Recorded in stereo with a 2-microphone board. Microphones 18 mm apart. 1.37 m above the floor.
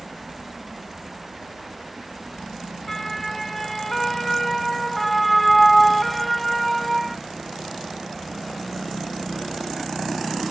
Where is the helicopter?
50° right (ahead or behind).